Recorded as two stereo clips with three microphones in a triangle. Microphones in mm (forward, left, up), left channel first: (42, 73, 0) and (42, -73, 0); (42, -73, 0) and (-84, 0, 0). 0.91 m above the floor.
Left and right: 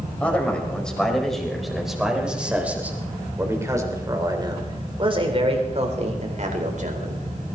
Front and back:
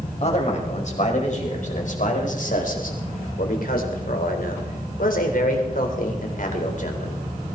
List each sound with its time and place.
0.2 s a man speaking: 10° left, 5 m; by 7.2 s 65° right, 4 m